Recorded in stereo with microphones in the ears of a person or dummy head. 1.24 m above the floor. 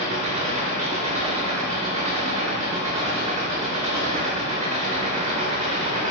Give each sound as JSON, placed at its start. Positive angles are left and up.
{"t": 0.0, "sound": "an engine running", "side_deg": -30, "distance_m": 1.9}